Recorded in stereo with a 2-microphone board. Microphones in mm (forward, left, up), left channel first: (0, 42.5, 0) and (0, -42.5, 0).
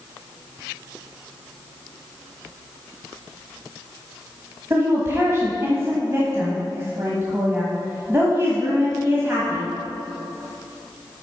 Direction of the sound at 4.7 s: 30° right (ahead or behind).